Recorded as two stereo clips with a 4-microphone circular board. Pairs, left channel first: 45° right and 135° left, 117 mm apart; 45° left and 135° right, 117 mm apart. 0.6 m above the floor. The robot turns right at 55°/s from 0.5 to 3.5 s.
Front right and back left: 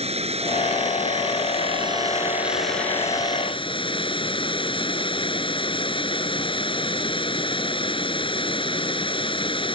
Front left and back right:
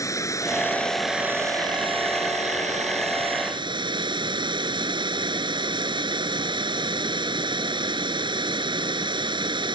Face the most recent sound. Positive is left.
turn(degrees=-90)